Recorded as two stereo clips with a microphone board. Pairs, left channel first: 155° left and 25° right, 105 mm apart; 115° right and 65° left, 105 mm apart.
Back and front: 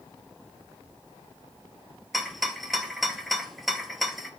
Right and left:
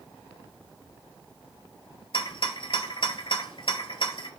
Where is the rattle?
115° right, 0.5 m.